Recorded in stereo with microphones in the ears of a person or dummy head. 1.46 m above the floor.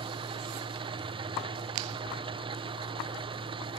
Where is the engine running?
25° right (ahead or behind), 0.9 m.